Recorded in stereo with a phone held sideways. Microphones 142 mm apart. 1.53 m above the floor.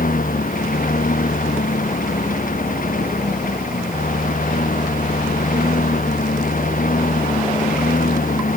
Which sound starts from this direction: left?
A lawn mower, at 0.0 s.